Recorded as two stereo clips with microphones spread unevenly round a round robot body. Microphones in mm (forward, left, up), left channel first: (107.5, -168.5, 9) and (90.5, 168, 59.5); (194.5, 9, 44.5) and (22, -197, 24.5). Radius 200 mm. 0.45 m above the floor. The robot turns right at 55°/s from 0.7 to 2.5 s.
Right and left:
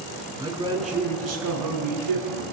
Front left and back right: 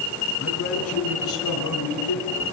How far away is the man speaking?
About 8 m.